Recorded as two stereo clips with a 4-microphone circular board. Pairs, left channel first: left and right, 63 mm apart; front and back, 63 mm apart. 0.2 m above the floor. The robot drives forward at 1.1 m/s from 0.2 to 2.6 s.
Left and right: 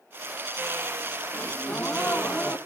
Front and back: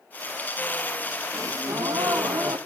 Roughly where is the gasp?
Behind left.